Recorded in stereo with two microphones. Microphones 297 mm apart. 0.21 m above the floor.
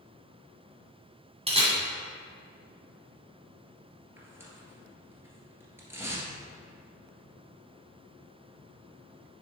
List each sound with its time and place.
1.5 s a camera shutter: 20° right (ahead or behind), 2 m
4.2 s tearing paper: 10° right (ahead or behind), 1.6 m